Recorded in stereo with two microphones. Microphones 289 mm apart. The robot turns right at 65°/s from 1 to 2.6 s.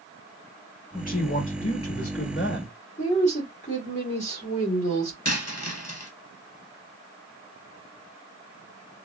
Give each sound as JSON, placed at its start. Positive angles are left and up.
{"t": 0.9, "sound": "a man speaking", "azimuth_deg": 30, "distance_m": 1.0}
{"t": 3.0, "sound": "a woman speaking", "side_deg": 25, "distance_m": 1.4}
{"t": 5.2, "sound": "a dropped coin", "side_deg": 60, "distance_m": 1.0}